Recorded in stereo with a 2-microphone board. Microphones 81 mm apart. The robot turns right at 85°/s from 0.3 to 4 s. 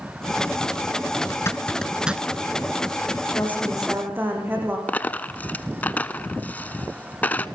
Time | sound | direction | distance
1.3 | a zipper | 45° left (ahead or behind) | 1.0 m
3.3 | a woman speaking | 145° left | 9 m
4.9 | a dropped coin | 20° left (ahead or behind) | 0.9 m